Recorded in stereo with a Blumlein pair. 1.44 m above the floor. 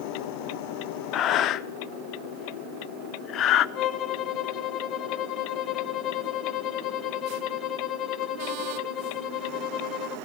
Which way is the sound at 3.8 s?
30° left.